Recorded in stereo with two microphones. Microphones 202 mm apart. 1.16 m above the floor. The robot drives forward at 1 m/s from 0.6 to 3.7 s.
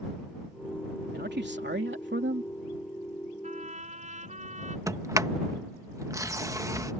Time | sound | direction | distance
1.1 | a man speaking | 60° right (ahead or behind) | ?
3.4 | a trumpet | 40° right (ahead or behind) | ?
4.9 | a sliding door | 15° right (ahead or behind) | ?